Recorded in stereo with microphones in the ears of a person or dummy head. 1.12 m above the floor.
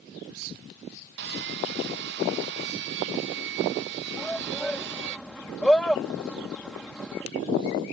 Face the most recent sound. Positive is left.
turn(degrees=5)  # may be behind; listen again after turning